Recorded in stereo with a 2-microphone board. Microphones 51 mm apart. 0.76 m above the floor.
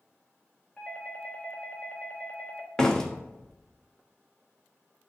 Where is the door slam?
15° left (ahead or behind), 0.8 m.